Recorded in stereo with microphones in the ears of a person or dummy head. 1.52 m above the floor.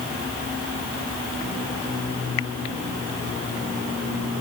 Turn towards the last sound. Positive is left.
No sound to turn to.